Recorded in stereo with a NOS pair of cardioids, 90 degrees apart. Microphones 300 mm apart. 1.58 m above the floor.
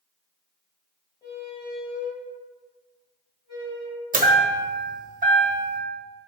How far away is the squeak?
About 1.6 m.